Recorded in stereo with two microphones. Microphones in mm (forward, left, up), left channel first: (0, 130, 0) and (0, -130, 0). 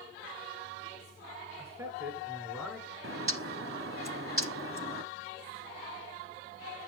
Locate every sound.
1.6 s a man speaking: 15° right (ahead or behind), 4.5 m; by 2.9 s centre (ahead or behind), 3.5 m
3.0 s a bird: 55° right (ahead or behind), 1.1 m